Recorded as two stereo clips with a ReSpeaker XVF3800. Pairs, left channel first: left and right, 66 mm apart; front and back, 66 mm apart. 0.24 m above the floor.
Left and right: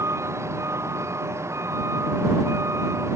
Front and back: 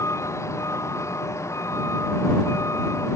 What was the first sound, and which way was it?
A vehicle, 45° right.